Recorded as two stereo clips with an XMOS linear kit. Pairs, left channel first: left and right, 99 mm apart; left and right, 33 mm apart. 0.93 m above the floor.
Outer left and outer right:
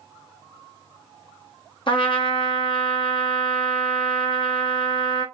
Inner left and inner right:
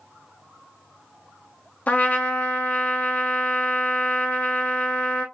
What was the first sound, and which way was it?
A trumpet, 60° left (ahead or behind).